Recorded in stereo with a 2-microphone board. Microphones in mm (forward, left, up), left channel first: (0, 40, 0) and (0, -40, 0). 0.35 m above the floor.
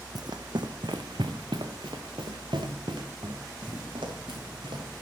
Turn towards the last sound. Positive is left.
turn(degrees=-80)